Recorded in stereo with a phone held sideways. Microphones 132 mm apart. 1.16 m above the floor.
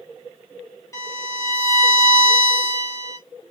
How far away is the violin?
About 2.5 m.